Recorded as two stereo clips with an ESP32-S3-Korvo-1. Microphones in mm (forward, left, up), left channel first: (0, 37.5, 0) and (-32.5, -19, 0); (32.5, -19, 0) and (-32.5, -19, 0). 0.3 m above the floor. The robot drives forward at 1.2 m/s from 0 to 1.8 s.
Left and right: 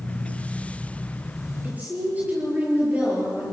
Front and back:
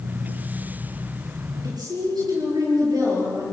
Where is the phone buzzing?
No phone buzzing in this recording.